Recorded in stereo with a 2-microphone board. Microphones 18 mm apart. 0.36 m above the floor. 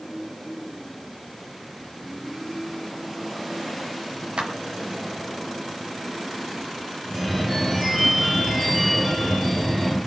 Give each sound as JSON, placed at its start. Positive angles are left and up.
{"t": 4.4, "sound": "a clap", "side_deg": -75, "distance_m": 4.5}
{"t": 7.0, "sound": "a phone ringing", "side_deg": -5, "distance_m": 4.5}